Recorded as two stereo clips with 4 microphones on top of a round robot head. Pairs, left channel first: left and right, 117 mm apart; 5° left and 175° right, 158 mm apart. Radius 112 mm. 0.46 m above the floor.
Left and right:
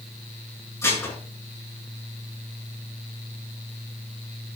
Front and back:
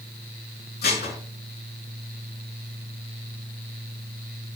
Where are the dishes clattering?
20° left, 4.5 m.